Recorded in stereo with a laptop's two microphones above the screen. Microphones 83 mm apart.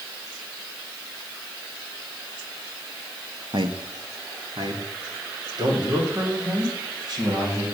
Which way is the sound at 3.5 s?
60° right (ahead or behind).